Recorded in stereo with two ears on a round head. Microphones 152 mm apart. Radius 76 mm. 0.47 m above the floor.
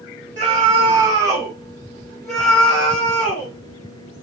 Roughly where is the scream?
Right.